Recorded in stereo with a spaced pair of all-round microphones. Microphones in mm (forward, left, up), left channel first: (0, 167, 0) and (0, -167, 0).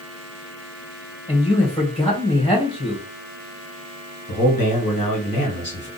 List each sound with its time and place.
1.3 s a man speaking: 15° left (ahead or behind), 1.6 m
4.3 s a man speaking: 85° left, 1.6 m